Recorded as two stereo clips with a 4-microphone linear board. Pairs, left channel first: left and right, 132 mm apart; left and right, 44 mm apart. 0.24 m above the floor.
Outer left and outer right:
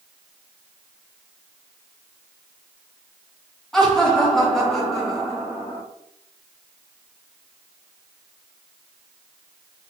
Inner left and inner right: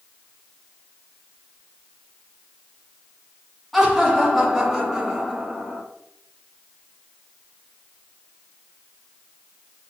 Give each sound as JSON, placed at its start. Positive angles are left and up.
{"t": 3.7, "sound": "laughter", "side_deg": 5, "distance_m": 2.5}